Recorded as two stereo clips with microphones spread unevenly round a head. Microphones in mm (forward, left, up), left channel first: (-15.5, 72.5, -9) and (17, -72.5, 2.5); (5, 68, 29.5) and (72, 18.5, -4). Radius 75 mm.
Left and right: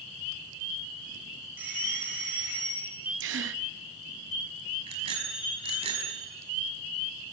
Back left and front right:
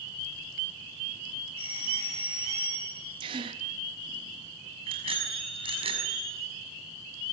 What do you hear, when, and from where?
1.6 s a doorbell: 155° right, 6 m
3.2 s a gasp: 80° right, 1.0 m
4.9 s a bicycle bell: 25° right, 6 m